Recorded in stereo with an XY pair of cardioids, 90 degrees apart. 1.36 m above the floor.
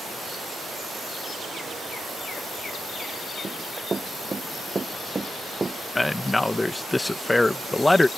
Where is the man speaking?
15° left.